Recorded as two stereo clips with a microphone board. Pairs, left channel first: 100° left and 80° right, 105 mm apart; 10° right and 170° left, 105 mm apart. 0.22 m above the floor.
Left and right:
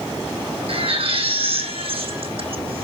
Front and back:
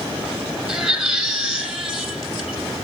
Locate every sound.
0.7 s a baby crying: 105° right, 4.5 m